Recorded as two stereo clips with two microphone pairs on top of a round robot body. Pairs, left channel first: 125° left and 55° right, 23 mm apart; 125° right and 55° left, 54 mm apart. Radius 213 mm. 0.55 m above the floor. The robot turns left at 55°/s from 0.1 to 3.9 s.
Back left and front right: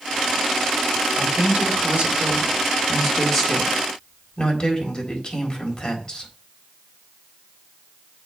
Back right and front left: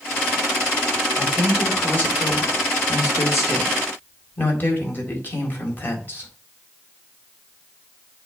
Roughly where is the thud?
I don't hear a thud.